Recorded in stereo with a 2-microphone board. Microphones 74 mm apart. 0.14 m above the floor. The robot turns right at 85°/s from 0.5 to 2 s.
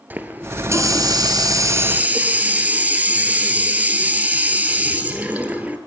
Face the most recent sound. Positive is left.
turn(degrees=-25)